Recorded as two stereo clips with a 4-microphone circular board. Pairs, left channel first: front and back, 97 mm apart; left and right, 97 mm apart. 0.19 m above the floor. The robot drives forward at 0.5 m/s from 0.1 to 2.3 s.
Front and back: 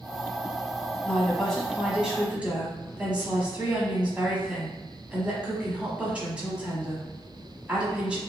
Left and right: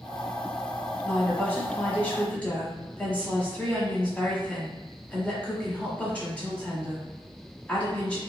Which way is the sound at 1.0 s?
50° left.